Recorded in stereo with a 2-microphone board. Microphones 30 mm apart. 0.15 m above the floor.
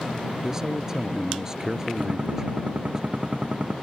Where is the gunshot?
45° right (ahead or behind).